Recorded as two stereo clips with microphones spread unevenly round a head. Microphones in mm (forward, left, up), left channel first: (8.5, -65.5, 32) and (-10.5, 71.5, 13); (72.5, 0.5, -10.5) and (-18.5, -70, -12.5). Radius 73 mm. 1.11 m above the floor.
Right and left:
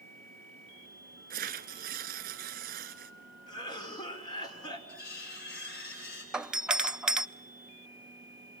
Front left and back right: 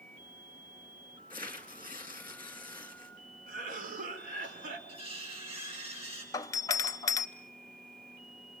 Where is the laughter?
I don't hear laughter.